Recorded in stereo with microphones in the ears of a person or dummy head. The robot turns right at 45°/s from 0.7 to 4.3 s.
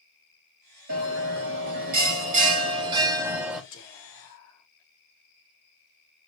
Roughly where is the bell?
Behind right.